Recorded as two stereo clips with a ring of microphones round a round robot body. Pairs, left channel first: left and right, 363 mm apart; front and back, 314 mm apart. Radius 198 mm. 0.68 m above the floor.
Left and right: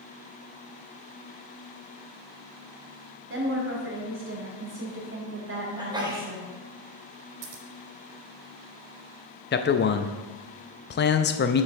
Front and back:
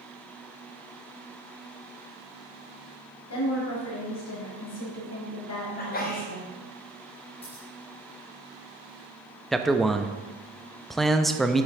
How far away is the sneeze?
About 1.0 m.